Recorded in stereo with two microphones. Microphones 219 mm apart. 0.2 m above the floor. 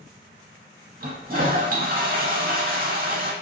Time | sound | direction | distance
1.0 | a toilet flushing | 45° right (ahead or behind) | 0.5 m